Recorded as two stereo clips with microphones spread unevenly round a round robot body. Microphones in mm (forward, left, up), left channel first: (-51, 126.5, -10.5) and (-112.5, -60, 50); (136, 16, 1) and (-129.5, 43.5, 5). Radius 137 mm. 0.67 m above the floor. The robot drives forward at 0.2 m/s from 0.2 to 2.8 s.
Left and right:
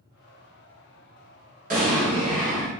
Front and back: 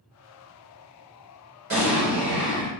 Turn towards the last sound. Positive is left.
turn(degrees=-165)